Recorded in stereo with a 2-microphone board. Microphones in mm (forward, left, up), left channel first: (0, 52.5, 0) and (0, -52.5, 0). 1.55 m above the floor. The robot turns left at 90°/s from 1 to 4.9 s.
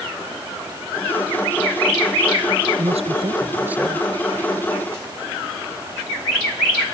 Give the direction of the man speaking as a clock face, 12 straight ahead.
3 o'clock.